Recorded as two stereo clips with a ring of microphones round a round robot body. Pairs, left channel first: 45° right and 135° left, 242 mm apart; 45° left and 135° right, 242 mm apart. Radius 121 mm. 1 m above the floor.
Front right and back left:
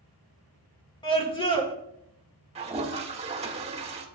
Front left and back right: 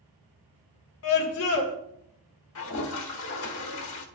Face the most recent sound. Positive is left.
turn(degrees=70)